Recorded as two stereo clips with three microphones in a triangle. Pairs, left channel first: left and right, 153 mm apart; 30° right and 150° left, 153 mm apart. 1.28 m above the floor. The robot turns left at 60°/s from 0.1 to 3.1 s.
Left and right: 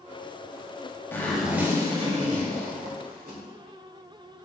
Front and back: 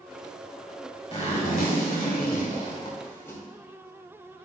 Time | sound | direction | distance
1.1 | a zipper | 15° left | 2.5 m